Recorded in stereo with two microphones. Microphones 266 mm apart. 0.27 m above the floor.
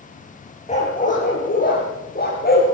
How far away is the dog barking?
About 6.5 m.